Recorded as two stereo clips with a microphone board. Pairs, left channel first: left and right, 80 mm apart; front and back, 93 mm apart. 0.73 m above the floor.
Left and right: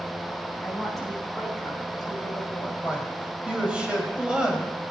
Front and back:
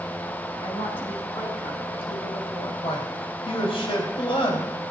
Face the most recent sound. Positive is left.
turn(degrees=-15)